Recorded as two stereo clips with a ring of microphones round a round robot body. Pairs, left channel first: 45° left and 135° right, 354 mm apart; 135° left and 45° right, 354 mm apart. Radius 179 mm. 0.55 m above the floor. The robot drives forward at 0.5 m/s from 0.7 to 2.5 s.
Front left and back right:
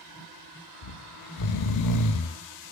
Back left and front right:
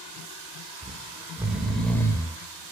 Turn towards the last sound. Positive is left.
turn(degrees=65)